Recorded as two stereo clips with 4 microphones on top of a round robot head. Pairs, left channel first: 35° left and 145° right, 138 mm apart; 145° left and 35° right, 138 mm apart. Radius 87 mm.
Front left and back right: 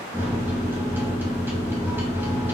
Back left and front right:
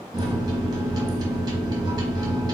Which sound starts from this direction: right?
A microwave, at 0.1 s.